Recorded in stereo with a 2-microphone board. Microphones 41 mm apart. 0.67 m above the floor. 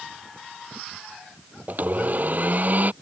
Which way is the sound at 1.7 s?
50° right (ahead or behind).